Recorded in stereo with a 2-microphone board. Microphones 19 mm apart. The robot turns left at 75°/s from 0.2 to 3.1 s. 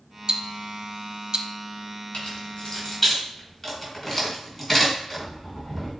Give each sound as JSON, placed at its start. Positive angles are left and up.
{"t": 0.3, "sound": "ticking", "side_deg": -50, "distance_m": 0.6}
{"t": 2.1, "sound": "keys jangling", "side_deg": 80, "distance_m": 3.0}